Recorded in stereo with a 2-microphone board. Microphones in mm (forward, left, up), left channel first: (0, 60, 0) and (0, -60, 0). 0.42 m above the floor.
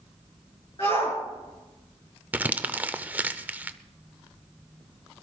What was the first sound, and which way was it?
A shout, 50° left (ahead or behind).